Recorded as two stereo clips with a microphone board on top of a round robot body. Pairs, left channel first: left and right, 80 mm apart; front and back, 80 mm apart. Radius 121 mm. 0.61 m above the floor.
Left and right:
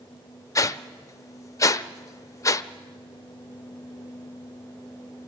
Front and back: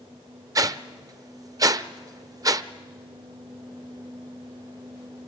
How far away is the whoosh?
About 0.7 m.